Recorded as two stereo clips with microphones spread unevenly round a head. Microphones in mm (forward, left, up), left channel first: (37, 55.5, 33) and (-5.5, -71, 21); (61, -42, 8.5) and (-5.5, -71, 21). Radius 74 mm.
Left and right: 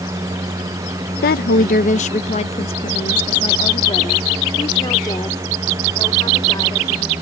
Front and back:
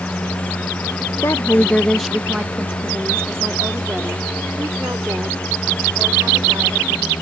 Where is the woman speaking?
80° left; by 7.1 s 140° left.